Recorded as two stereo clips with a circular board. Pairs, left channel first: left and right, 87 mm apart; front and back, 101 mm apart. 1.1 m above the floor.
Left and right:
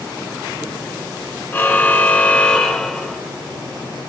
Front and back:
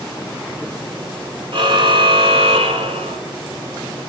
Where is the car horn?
150° left, 2.5 m; by 3.2 s straight behind, 2 m.